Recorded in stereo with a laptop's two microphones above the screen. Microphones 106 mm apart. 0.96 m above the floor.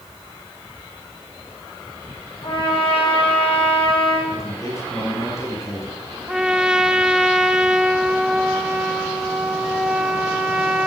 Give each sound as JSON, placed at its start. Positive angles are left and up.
{"t": 2.4, "sound": "a trumpet", "side_deg": 60, "distance_m": 8.0}
{"t": 4.3, "sound": "a man speaking", "side_deg": 30, "distance_m": 7.5}
{"t": 6.3, "sound": "a trumpet", "side_deg": -5, "distance_m": 1.0}